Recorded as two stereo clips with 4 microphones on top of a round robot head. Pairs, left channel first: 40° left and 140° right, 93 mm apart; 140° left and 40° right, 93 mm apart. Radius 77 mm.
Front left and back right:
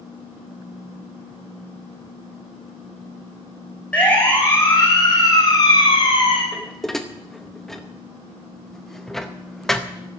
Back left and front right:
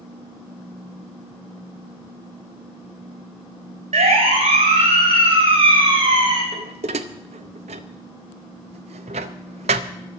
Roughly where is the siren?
Ahead right.